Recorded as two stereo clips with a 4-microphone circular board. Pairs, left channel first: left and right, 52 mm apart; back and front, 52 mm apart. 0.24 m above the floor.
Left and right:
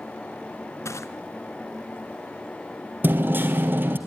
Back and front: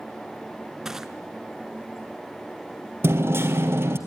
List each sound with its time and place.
0.8 s crushing: 80° left, 1.1 m
3.0 s hammering: 40° right, 2 m